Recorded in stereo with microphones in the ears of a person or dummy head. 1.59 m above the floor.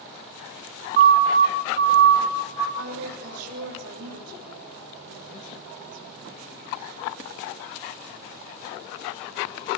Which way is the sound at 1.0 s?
55° right (ahead or behind).